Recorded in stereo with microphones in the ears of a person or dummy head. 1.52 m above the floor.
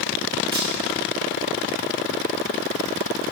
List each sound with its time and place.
0.5 s a camera shutter: 25° right (ahead or behind), 1.6 m